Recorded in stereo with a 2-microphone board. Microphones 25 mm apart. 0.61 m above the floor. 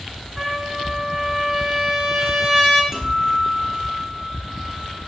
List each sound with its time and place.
0.4 s a trumpet: 10° left (ahead or behind), 4 m
2.9 s a guitar: 15° right (ahead or behind), 6.5 m